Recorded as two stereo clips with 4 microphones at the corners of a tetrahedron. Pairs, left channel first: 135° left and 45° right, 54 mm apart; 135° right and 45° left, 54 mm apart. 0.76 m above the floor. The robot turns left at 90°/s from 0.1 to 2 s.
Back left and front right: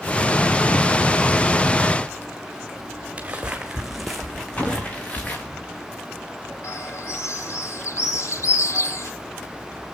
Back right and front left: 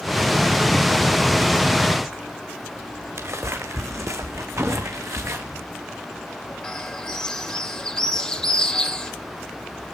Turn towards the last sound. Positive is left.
turn(degrees=150)